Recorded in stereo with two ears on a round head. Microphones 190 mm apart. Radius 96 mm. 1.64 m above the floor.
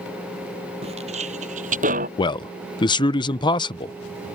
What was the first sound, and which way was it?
Footsteps, 30° right (ahead or behind).